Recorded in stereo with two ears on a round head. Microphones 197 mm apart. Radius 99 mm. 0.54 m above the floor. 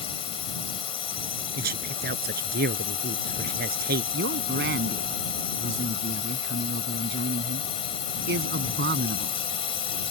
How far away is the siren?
No siren in this recording.